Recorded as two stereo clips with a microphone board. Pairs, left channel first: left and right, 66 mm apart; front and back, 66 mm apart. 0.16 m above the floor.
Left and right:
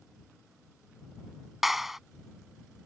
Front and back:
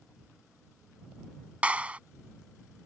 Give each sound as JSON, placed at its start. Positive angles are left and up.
{"t": 1.6, "sound": "a clap", "azimuth_deg": -170}